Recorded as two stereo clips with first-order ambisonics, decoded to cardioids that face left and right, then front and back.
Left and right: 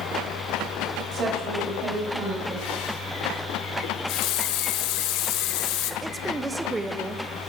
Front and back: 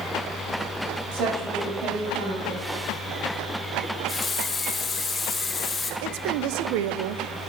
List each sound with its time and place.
1.1 s a woman speaking: 155° right, 7 m
3.8 s a running tap: 75° left, 1.4 m
6.0 s a woman speaking: 170° right, 1.0 m